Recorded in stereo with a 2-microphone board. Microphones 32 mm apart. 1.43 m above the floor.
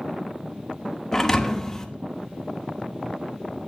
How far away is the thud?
About 0.9 m.